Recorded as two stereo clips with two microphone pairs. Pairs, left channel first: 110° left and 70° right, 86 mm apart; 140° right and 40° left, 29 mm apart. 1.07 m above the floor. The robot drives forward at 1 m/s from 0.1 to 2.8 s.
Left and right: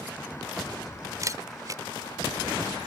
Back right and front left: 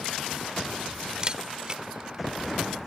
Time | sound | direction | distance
1.2 | a camera shutter | 20° right | ?